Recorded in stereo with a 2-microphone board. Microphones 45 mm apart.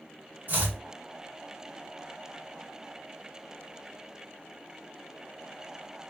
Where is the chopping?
45° right (ahead or behind), 1.1 m.